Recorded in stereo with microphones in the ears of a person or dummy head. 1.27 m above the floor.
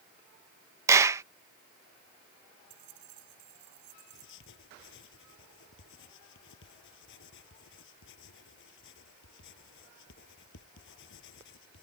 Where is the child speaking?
No child speaking in this recording.